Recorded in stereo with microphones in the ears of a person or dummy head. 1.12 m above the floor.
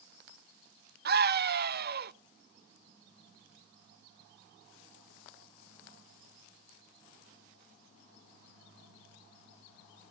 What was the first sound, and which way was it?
A scream, 50° right (ahead or behind).